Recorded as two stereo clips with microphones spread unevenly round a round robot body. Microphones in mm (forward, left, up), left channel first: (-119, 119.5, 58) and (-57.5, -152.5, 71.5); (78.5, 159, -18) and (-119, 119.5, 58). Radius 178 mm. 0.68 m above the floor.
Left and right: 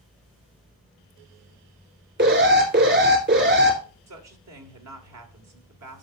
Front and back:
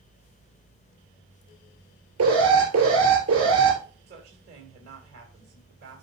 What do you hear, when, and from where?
2.2 s an alarm: 125° right, 3 m
4.1 s a woman speaking: 105° right, 2 m